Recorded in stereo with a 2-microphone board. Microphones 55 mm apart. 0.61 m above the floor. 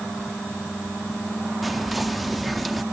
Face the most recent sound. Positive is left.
turn(degrees=0)  # may be behind; listen again after turning